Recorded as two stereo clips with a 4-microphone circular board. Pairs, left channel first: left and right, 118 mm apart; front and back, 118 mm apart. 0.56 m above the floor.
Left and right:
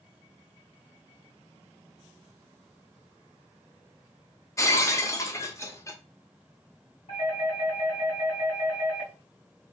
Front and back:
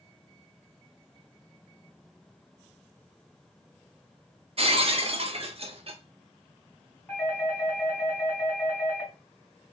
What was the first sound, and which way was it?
Breaking glass, 150° left.